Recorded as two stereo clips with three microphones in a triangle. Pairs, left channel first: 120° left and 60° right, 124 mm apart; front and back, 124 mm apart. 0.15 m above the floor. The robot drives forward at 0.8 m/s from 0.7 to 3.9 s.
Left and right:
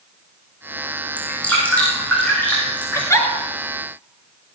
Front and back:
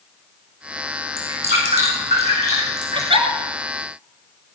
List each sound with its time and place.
1.2 s dripping: 160° right, 5.5 m; by 3.1 s 165° right, 7 m
3.0 s a giggle: 175° left, 1.8 m